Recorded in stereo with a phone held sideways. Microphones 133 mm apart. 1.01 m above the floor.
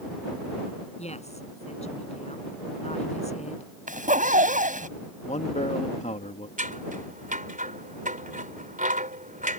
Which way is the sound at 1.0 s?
50° left (ahead or behind).